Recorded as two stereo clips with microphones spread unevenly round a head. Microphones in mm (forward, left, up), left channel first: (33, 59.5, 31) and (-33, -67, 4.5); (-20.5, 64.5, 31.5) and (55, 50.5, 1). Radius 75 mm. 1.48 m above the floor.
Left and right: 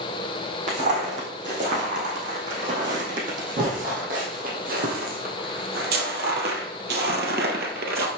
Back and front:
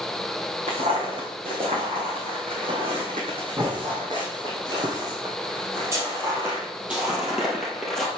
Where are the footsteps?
70° right, 4.5 m; by 8.1 s 130° right, 2.0 m.